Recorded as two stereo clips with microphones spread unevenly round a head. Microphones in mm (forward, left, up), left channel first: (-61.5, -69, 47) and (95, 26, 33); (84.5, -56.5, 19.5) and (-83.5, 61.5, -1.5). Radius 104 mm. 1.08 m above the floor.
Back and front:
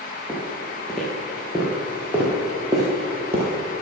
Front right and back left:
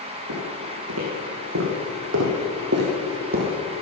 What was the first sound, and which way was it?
Footsteps, 130° left.